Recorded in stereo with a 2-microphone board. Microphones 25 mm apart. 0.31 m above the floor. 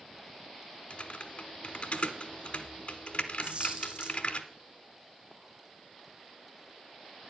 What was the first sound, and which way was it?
Typing on a keyboard, 50° left (ahead or behind).